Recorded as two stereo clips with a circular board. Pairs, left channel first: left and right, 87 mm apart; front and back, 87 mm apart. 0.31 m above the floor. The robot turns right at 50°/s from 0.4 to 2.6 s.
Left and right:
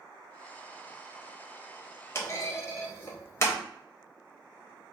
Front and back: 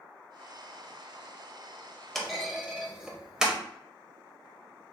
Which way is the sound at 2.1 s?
80° left.